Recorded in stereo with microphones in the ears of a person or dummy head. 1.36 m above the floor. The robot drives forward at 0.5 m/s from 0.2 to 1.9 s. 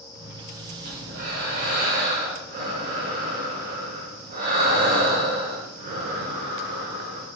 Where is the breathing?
55° right (ahead or behind), 2.5 m; by 7.3 s 45° right (ahead or behind), 3 m.